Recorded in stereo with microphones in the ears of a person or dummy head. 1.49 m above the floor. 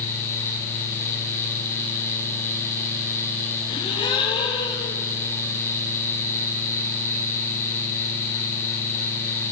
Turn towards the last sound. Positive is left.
turn(degrees=25)  # may be behind; listen again after turning